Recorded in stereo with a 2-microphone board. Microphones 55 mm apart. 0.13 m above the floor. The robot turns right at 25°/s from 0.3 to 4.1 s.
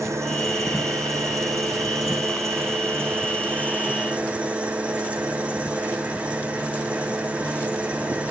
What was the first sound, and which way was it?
An engine running, 120° right.